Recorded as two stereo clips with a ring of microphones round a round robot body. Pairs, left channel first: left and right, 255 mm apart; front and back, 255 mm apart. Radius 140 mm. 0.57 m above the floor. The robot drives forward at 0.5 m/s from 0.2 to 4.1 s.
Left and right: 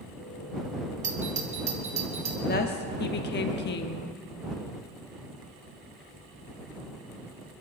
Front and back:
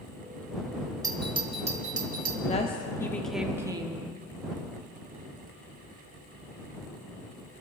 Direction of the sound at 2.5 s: 55° left.